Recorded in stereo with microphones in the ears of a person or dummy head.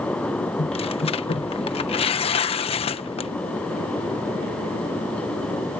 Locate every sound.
0.6 s tearing paper: 30° left (ahead or behind)